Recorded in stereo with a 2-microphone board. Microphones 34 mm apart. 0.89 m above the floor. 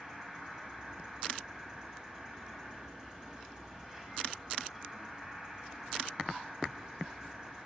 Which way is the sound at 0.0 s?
20° right (ahead or behind).